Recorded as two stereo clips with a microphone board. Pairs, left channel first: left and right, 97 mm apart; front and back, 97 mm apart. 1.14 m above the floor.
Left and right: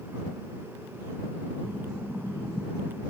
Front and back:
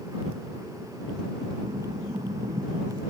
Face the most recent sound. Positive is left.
turn(degrees=180)